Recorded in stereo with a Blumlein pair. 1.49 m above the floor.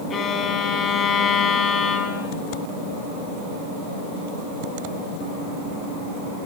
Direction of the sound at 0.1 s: 25° left.